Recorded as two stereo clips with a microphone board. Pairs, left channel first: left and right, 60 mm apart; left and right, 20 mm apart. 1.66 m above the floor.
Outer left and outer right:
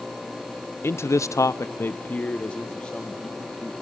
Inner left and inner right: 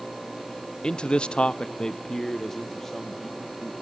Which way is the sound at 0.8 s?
40° left (ahead or behind).